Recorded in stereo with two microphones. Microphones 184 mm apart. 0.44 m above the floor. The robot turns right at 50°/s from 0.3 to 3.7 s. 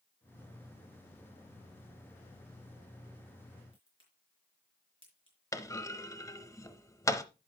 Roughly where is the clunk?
Centre.